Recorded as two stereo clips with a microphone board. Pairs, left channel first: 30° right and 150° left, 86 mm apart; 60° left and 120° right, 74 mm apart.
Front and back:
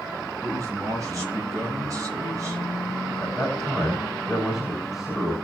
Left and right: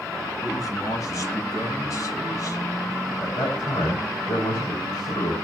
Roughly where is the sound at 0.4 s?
Left.